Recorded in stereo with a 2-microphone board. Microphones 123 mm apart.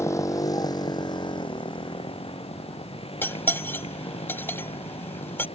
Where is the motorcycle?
25° left (ahead or behind); by 5.6 s 55° left (ahead or behind).